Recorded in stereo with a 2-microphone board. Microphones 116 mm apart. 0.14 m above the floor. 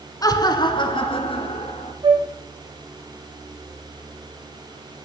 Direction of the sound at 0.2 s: 30° left (ahead or behind).